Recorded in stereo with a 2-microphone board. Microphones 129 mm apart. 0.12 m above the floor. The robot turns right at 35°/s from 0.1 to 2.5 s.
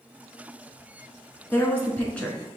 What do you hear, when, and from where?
1.5 s a woman speaking: 15° left (ahead or behind), 1.3 m; by 2.4 s 5° left (ahead or behind), 1.3 m